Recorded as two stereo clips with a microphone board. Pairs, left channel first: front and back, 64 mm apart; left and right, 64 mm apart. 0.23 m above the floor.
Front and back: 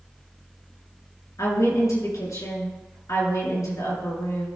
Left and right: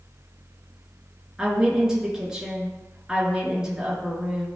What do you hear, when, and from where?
1.4 s a woman speaking: 10° right, 3.5 m